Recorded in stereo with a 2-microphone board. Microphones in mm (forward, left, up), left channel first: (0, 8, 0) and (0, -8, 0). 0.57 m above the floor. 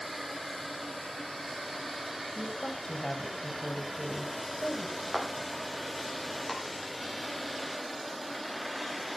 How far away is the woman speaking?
About 3.5 m.